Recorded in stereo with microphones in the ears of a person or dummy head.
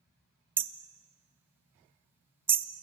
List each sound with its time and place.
0.6 s hammering: 10° right (ahead or behind), 0.8 m